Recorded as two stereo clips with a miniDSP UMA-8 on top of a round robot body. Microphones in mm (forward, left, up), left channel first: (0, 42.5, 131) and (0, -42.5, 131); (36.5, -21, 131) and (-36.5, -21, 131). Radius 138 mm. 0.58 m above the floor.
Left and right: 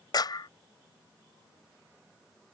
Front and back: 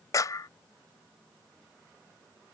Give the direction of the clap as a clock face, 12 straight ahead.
10 o'clock.